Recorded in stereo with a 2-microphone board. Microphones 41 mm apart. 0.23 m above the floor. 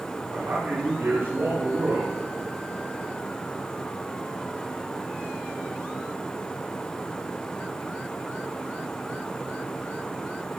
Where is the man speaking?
70° right (ahead or behind), 6.5 m.